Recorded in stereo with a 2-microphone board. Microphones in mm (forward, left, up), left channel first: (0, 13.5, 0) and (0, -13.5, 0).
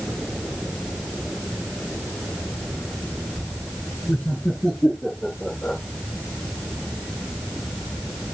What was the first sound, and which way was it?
Laughter, 30° left (ahead or behind).